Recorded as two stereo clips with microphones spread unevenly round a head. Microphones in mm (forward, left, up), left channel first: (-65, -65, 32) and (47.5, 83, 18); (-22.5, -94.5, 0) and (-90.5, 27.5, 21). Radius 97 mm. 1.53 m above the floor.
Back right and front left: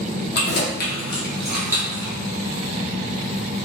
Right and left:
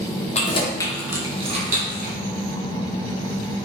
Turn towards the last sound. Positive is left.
turn(degrees=125)